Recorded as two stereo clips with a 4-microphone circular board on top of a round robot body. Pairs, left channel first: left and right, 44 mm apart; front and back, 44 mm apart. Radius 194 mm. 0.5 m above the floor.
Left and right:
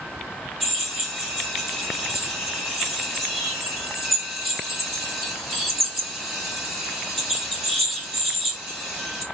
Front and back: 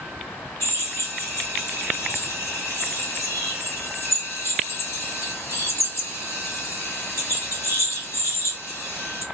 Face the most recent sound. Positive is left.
turn(degrees=-5)